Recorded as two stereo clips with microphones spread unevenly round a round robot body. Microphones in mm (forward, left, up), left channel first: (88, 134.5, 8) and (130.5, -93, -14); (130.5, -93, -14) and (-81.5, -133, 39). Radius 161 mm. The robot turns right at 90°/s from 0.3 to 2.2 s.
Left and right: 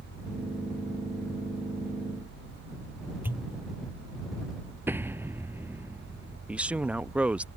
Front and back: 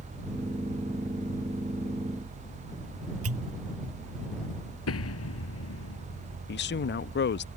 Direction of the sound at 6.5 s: 5° left.